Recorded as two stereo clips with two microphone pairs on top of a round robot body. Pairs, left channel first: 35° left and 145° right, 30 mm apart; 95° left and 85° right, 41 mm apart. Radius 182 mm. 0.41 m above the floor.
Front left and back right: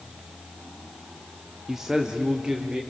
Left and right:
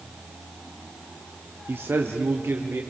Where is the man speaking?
70° right, 1.0 m; by 2.8 s 90° right, 1.7 m.